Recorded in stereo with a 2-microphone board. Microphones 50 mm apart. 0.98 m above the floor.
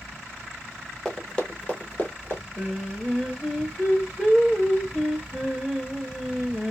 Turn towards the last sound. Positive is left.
turn(degrees=-5)  # may be behind; listen again after turning